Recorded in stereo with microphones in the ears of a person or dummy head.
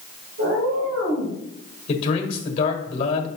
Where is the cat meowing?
65° right (ahead or behind), 2.5 m; by 1.4 s 60° right (ahead or behind), 3 m.